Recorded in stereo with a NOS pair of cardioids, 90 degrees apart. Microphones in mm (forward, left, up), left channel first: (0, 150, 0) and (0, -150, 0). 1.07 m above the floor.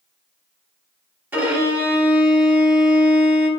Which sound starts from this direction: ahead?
A violin, at 1.3 s.